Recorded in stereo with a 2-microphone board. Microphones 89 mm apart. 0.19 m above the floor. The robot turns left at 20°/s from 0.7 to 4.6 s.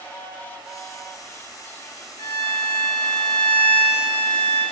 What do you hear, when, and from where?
2.2 s a violin: 140° left, 0.8 m; by 4.6 s 90° left, 0.8 m